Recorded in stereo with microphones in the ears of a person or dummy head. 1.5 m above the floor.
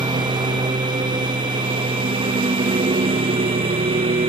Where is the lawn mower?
20° right (ahead or behind); by 4.3 s 25° right (ahead or behind).